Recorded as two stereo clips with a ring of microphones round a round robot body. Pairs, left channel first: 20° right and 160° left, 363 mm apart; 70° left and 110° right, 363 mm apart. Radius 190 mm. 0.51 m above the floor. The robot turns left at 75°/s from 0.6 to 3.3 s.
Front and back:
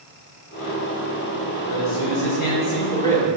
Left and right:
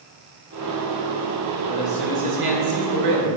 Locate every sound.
1.7 s a man speaking: straight ahead, 1.8 m; by 3.4 s 120° right, 1.8 m